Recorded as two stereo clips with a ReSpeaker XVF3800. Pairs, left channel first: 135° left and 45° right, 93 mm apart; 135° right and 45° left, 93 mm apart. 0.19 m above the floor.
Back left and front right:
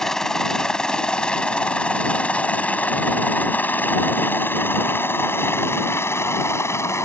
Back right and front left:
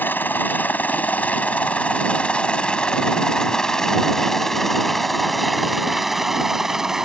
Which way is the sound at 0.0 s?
150° right.